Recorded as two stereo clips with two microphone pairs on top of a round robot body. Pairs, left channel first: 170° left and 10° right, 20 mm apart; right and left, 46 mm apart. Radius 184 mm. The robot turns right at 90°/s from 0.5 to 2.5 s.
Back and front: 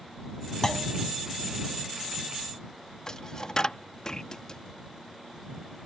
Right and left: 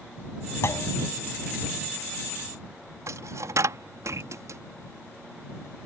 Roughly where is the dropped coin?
Left.